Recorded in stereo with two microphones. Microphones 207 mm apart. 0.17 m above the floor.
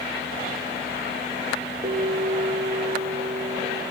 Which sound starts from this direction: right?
A bell, at 1.8 s.